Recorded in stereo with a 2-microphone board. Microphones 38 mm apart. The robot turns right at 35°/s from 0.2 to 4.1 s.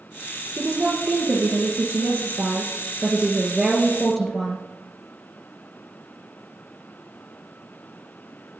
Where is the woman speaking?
125° right, 2.5 m; by 4.6 s straight ahead, 2.5 m.